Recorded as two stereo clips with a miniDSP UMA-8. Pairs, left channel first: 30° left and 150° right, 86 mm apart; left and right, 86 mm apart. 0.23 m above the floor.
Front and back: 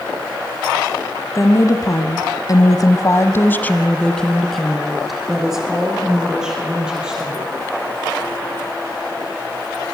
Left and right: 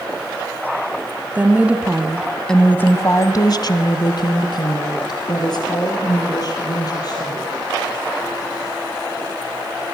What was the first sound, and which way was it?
A woman speaking, 20° right.